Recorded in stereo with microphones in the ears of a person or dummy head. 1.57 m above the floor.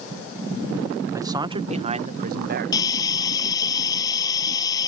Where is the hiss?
20° left (ahead or behind).